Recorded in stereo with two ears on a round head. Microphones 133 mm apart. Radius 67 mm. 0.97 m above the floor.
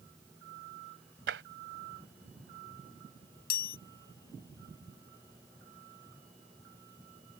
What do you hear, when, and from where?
1.3 s tapping: 85° right
3.5 s a chime: 70° left (ahead or behind)